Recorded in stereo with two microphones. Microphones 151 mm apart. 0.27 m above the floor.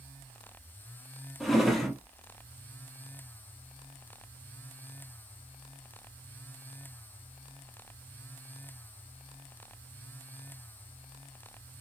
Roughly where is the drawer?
Centre.